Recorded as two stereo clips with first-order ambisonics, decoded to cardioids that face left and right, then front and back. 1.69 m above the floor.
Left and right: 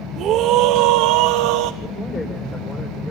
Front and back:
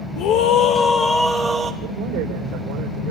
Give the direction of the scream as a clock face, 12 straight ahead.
1 o'clock.